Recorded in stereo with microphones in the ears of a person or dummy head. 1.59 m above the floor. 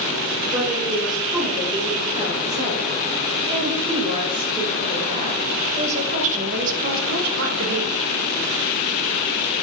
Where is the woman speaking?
15° right (ahead or behind), 4.5 m; by 7.9 s 65° right (ahead or behind), 1.1 m.